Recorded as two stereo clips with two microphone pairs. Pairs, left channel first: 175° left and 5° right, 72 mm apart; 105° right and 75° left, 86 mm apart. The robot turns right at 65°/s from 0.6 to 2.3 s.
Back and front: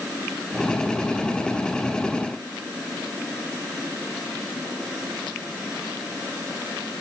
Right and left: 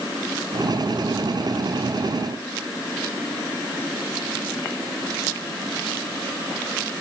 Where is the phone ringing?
I don't hear a phone ringing.